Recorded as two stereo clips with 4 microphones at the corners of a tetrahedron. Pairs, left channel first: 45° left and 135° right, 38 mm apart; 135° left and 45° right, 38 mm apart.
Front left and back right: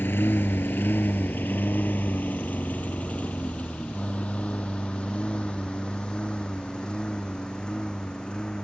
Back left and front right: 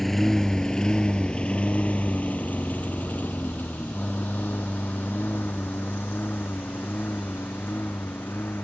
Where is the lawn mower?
50° left; by 8.6 s 115° left.